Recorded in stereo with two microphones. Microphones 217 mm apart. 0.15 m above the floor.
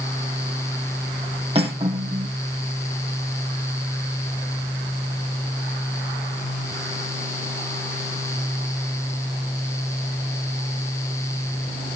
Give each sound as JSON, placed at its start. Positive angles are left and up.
{"t": 1.6, "sound": "cutlery clinking", "side_deg": -25, "distance_m": 3.5}